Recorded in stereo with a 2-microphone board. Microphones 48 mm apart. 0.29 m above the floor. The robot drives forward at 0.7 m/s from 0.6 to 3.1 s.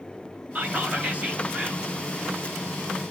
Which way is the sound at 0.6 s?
35° right (ahead or behind).